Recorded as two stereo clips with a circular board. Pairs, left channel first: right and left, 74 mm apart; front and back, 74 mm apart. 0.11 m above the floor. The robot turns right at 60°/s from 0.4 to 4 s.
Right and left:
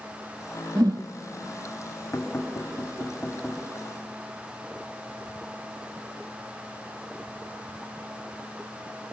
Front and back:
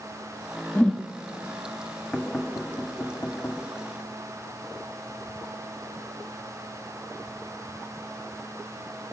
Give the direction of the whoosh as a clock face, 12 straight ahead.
10 o'clock.